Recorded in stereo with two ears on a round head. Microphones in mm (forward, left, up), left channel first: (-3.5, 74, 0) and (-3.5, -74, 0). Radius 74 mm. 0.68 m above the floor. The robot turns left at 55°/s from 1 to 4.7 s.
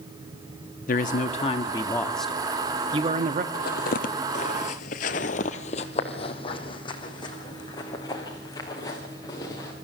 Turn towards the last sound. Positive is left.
turn(degrees=20)  # may be behind; listen again after turning